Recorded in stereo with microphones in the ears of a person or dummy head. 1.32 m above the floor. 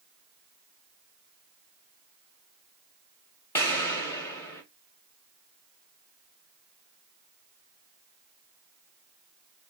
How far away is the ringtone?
No ringtone in this recording.